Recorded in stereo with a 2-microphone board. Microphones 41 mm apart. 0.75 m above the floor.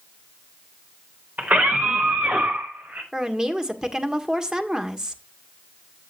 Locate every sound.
1.4 s a scream: 45° right (ahead or behind), 3.5 m; by 3.0 s 60° right (ahead or behind), 4.5 m
3.1 s a woman speaking: 20° right (ahead or behind), 1.6 m